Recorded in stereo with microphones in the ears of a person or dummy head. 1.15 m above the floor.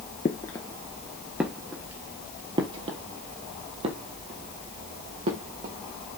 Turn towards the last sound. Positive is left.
turn(degrees=-45)  # may be behind; listen again after turning